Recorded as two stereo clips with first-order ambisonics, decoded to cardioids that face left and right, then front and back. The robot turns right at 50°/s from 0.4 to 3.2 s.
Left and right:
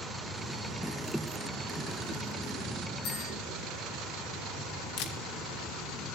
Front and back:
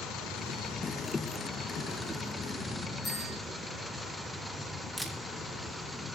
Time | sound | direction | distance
3.0 | a bell | 70° left | 6.5 m
5.0 | a camera shutter | 95° left | 1.3 m